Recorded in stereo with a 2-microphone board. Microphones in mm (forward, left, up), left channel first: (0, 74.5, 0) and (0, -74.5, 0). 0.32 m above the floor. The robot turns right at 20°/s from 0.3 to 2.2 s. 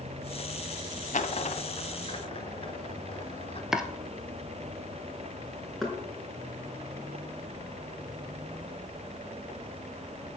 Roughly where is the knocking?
Centre.